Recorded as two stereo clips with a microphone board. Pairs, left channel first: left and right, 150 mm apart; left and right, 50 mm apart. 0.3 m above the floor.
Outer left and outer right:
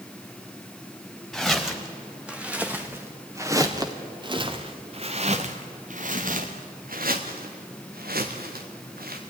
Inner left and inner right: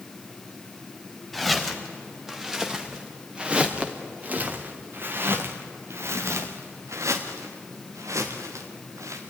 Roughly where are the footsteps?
Centre.